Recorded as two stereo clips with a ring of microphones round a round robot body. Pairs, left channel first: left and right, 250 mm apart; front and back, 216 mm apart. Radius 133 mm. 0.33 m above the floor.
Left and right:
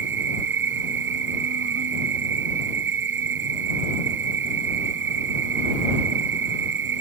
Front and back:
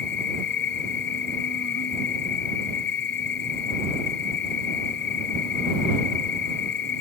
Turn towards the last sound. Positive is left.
turn(degrees=-45)